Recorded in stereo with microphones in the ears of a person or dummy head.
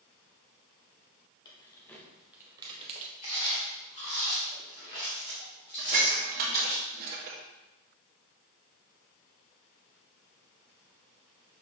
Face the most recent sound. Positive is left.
turn(degrees=-50)  # may be behind; listen again after turning